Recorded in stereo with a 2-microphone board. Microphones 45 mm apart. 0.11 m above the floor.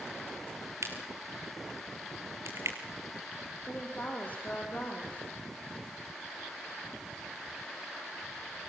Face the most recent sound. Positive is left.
turn(degrees=35)  # may be behind; listen again after turning